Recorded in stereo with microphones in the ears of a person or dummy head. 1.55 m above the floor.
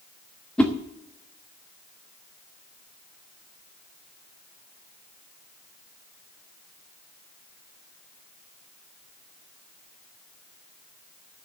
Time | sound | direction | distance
0.6 | a whoosh | 5° left (ahead or behind) | 1.2 m